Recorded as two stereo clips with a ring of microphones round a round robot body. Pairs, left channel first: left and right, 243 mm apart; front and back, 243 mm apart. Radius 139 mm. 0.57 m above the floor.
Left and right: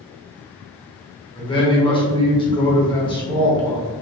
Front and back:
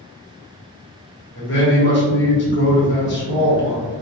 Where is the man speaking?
25° left, 1.2 m.